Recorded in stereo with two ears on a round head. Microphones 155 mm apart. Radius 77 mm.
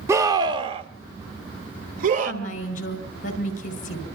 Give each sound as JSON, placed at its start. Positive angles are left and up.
{"t": 0.1, "sound": "a scream", "side_deg": -15, "distance_m": 0.8}
{"t": 2.2, "sound": "a woman speaking", "side_deg": 50, "distance_m": 4.5}